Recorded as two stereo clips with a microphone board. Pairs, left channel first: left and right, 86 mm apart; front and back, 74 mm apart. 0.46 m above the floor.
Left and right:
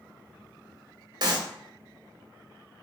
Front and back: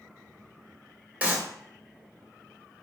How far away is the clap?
About 1.3 m.